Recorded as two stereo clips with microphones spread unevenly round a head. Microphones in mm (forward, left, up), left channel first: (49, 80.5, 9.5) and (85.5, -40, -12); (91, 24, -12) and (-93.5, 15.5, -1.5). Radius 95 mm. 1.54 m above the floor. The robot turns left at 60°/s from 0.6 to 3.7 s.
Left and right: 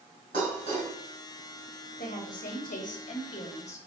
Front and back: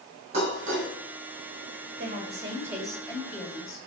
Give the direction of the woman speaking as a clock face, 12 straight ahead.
7 o'clock.